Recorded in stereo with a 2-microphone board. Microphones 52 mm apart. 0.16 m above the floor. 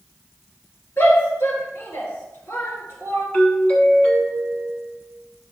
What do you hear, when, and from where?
1.0 s a shout: 60° left (ahead or behind), 2.5 m
3.3 s a doorbell: 25° left (ahead or behind), 1.6 m